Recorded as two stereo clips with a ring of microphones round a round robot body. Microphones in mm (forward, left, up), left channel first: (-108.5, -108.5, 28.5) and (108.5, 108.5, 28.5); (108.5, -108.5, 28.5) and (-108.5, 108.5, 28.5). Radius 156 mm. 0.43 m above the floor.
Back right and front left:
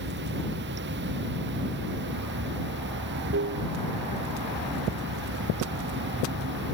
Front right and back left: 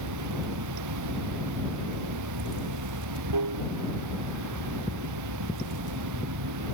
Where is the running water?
100° left.